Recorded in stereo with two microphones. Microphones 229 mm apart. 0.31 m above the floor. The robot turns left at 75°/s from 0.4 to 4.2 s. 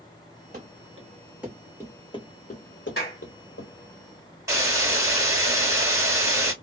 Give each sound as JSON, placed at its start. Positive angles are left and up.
{"t": 0.5, "sound": "running footsteps", "side_deg": -45, "distance_m": 1.1}
{"t": 3.0, "sound": "a clap", "side_deg": 45, "distance_m": 1.6}
{"t": 4.5, "sound": "a hiss", "side_deg": -15, "distance_m": 1.7}